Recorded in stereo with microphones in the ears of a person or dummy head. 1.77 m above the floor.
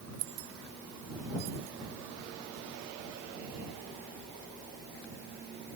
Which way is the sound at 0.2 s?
65° right (ahead or behind).